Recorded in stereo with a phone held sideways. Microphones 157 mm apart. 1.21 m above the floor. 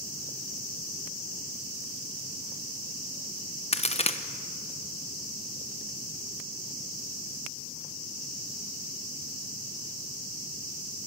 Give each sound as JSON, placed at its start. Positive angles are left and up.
{"t": 3.7, "sound": "a crack", "side_deg": 40, "distance_m": 0.9}